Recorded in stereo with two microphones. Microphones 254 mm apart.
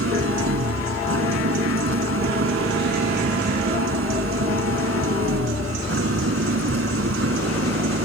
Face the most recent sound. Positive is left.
turn(degrees=-60)  # may be behind; listen again after turning